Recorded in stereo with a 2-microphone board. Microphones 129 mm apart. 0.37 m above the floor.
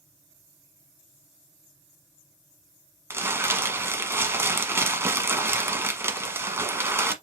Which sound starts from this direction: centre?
Crumpling, at 3.1 s.